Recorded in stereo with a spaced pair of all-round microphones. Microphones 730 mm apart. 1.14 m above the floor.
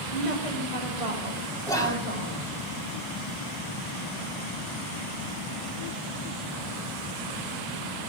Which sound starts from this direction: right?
A woman speaking, at 0.1 s.